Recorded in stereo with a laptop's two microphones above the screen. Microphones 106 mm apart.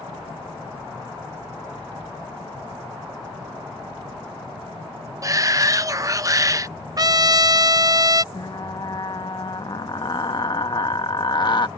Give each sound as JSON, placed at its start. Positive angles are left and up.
{"t": 5.2, "sound": "a shout", "side_deg": -30}
{"t": 7.0, "sound": "a trumpet", "side_deg": -40}
{"t": 8.3, "sound": "frying", "side_deg": 45}